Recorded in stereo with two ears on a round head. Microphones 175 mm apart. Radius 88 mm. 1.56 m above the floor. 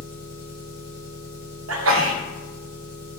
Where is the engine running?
30° right (ahead or behind), 1.8 m.